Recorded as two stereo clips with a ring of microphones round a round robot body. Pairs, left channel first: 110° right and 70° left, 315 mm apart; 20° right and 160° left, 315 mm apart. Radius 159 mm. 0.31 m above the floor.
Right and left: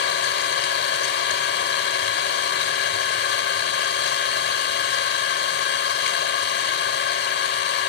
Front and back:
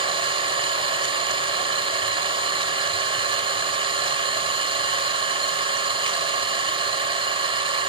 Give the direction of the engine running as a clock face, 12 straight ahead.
5 o'clock.